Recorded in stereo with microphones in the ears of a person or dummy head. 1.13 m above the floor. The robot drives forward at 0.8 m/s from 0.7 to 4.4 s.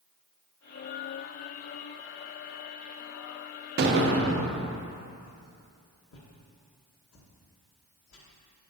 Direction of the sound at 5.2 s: 65° left (ahead or behind).